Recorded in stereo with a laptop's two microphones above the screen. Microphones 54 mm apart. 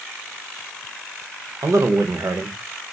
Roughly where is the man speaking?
Right.